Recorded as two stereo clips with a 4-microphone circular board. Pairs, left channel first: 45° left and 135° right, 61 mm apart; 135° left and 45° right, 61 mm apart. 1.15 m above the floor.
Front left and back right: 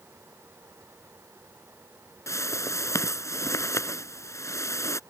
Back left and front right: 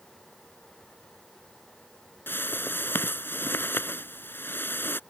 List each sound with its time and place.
2.3 s a whoosh: 80° left